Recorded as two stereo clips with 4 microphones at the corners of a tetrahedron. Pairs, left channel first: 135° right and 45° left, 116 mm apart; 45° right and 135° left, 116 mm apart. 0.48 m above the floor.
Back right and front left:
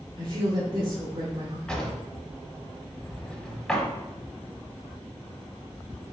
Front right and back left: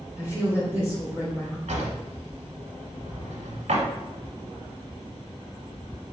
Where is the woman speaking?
70° left, 1.7 m.